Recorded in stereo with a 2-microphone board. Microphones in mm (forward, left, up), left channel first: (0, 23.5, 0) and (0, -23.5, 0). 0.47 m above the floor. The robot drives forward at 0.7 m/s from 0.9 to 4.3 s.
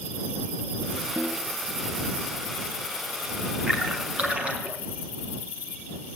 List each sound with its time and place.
1.2 s a snare drum: 65° right (ahead or behind), 3 m; by 1.5 s 60° right (ahead or behind), 3.5 m
3.7 s a splash: 30° right (ahead or behind), 4.5 m; by 4.8 s 25° right (ahead or behind), 5 m